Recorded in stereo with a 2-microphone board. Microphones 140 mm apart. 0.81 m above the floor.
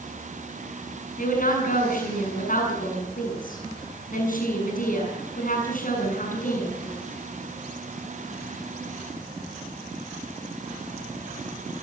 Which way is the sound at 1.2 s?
65° left (ahead or behind).